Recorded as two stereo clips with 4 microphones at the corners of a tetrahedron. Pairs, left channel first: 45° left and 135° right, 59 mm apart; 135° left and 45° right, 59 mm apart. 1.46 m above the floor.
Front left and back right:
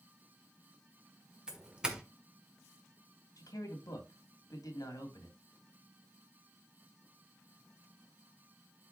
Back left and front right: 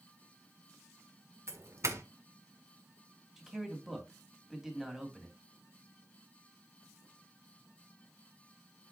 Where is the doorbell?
60° right, 1.3 m.